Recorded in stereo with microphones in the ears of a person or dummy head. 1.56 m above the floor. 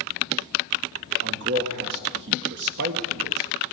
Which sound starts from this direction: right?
A man speaking, at 1.2 s.